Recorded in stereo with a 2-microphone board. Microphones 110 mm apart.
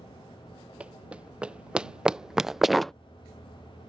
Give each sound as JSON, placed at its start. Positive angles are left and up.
{"t": 0.8, "sound": "running footsteps", "side_deg": -10}